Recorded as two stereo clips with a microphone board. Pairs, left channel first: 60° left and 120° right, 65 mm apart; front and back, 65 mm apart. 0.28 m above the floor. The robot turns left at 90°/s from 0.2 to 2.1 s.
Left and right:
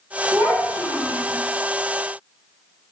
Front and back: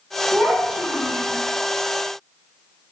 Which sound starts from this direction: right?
A child speaking, at 0.3 s.